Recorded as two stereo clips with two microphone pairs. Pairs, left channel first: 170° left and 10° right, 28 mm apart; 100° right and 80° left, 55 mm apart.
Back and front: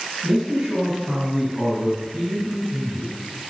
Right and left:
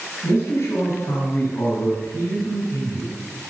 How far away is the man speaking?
About 3.5 m.